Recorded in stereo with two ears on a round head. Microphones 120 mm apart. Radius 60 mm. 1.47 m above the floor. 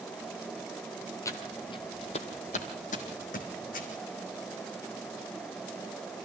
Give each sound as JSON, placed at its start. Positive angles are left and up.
{"t": 1.2, "sound": "footsteps", "side_deg": 20, "distance_m": 1.8}